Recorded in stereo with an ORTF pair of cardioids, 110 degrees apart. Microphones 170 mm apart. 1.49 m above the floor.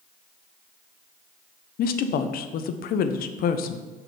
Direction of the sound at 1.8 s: 60° left.